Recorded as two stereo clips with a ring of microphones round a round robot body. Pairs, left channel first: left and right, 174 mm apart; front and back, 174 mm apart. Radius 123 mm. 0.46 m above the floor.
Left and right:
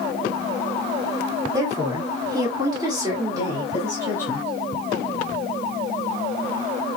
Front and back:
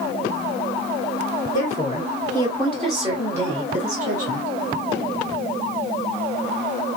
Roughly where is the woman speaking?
Ahead right.